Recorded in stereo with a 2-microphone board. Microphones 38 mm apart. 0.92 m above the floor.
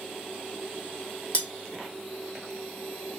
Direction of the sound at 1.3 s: 35° left (ahead or behind).